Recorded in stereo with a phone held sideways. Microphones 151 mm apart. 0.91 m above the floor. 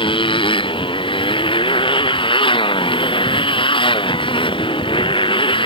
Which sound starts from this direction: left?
A motorcycle, at 0.0 s.